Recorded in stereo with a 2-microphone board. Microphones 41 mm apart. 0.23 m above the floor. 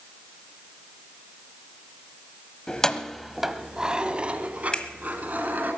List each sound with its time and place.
2.7 s keys jangling: 20° left (ahead or behind), 0.9 m; by 5.7 s 45° right (ahead or behind), 2 m
4.7 s a finger snap: 20° left (ahead or behind), 1.4 m